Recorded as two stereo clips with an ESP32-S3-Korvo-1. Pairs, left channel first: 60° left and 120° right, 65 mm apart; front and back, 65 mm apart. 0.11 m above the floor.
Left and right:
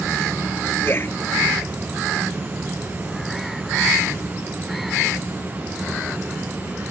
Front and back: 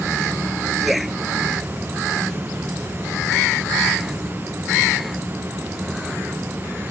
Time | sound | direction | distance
0.8 | a man speaking | 90° left | ?